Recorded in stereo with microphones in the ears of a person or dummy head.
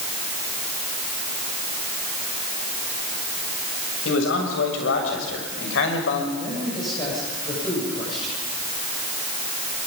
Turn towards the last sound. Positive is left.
turn(degrees=35)  # may be behind; listen again after turning